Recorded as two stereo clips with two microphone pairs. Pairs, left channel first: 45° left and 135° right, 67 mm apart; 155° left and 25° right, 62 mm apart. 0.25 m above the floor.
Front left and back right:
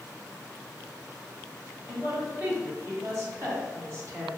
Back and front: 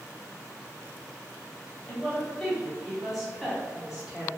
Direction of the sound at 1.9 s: 145° right.